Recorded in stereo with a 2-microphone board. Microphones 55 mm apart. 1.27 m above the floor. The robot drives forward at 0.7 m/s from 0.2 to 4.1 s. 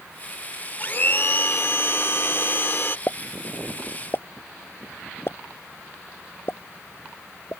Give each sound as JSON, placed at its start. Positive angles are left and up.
{"t": 0.8, "sound": "a blender", "side_deg": 40}
{"t": 3.1, "sound": "a pop", "side_deg": 45}